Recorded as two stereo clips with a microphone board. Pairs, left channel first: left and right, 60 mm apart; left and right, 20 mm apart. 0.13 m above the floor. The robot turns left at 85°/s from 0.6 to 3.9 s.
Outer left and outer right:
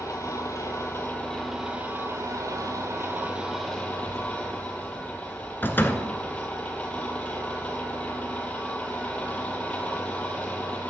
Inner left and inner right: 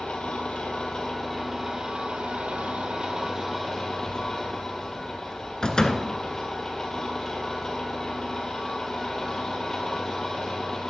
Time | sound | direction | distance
0.0 | an engine running | 75° left | 1.7 m
3.9 | a child speaking | 45° left (ahead or behind) | 1.9 m
5.6 | a door slam | 35° left (ahead or behind) | 0.9 m